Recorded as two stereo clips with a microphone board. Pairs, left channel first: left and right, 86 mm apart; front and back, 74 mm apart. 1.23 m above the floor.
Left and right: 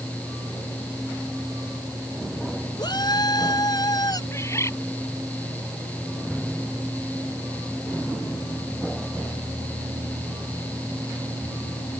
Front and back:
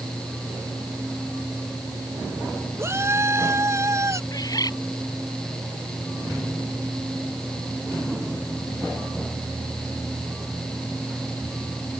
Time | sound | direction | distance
2.8 | a shout | 125° left | ?
4.3 | a bird | 35° left | ?